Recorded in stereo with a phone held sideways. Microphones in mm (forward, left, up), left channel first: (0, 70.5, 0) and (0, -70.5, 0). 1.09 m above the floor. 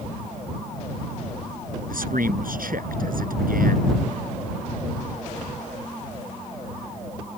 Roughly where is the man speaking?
Right.